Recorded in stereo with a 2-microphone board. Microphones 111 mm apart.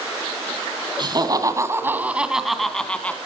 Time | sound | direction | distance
1.0 | laughter | 45° right (ahead or behind) | 2 m